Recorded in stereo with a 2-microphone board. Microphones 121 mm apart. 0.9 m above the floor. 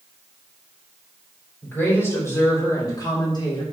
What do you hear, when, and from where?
1.6 s a woman speaking: 15° left (ahead or behind), 3.5 m; by 3.6 s 40° left (ahead or behind), 3 m